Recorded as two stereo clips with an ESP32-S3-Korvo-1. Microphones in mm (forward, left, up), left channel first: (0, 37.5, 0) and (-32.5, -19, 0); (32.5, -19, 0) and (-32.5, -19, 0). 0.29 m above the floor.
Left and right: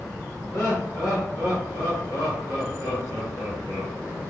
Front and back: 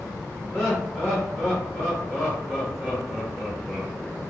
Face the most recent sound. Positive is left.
turn(degrees=55)